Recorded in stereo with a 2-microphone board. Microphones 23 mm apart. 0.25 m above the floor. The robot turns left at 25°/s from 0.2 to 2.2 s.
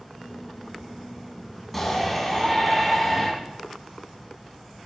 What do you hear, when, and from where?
1.7 s a shout: 10° left (ahead or behind), 1.8 m; by 3.3 s centre (ahead or behind), 1.8 m